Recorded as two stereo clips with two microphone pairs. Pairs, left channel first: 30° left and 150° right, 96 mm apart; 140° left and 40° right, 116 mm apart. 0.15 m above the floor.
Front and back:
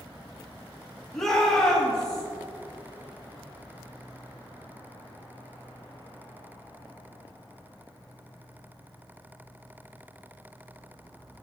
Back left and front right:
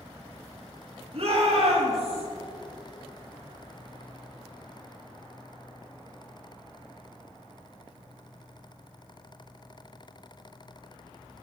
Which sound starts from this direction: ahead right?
A shout, at 1.1 s.